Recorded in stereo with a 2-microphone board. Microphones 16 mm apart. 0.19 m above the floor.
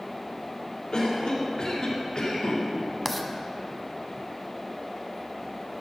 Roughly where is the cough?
Left.